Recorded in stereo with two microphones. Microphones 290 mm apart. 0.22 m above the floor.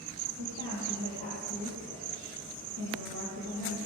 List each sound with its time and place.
0.4 s a woman speaking: 80° right, 7 m